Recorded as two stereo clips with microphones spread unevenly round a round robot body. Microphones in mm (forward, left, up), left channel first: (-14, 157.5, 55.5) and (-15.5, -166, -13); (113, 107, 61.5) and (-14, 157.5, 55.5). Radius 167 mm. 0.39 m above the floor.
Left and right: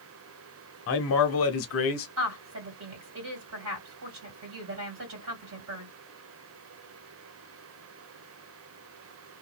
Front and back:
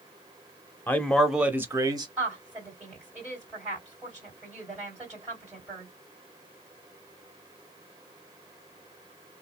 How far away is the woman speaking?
About 2 m.